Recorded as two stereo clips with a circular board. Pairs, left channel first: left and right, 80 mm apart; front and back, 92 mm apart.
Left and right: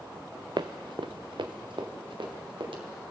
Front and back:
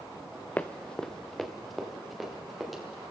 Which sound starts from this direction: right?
Running footsteps, at 0.6 s.